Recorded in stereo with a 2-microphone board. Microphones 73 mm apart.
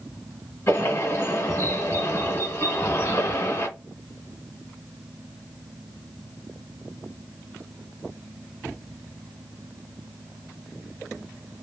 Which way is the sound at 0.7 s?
35° left (ahead or behind).